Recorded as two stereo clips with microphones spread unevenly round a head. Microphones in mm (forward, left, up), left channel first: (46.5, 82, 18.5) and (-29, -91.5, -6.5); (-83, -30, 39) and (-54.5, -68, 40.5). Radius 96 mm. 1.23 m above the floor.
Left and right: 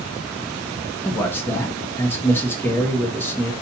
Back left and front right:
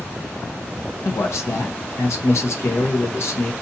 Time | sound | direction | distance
1.1 | a man speaking | 145° left | 1.2 m